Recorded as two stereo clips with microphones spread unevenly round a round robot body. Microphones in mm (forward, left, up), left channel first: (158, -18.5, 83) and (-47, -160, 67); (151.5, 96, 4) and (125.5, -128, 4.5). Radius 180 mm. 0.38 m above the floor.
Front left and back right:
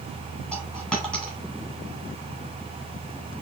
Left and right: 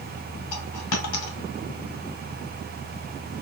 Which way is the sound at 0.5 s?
120° left.